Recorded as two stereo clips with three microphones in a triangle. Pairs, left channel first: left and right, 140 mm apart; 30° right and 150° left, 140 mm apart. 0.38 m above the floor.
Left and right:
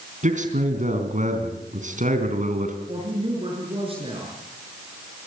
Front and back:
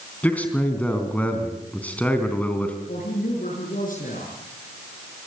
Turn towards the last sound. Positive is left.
turn(degrees=-40)